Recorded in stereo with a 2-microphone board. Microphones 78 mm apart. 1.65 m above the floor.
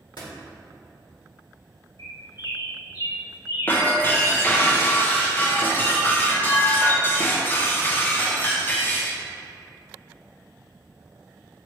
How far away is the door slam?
About 1.8 m.